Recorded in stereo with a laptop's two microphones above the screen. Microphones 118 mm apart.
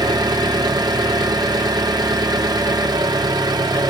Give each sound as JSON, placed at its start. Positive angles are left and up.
{"t": 0.0, "sound": "an engine running", "side_deg": -30, "distance_m": 1.5}